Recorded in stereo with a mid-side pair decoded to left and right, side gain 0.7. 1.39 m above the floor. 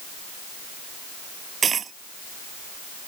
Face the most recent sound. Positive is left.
turn(degrees=-30)